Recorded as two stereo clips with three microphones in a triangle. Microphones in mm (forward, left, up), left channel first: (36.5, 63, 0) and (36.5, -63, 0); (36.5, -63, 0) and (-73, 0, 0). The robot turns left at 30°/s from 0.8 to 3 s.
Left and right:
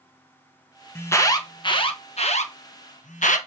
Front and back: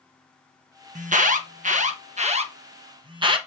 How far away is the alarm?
About 1.3 m.